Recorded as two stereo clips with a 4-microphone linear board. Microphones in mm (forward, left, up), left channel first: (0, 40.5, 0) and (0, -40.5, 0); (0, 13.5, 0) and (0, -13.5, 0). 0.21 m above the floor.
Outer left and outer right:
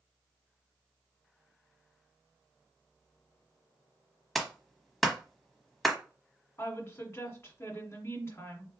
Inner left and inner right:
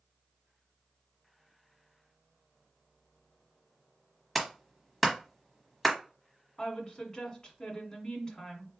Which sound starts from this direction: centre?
A clap, at 4.3 s.